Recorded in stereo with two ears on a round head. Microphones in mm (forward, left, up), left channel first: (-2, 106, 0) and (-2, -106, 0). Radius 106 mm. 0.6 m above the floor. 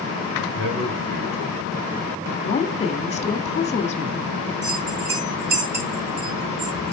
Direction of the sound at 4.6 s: 30° right (ahead or behind).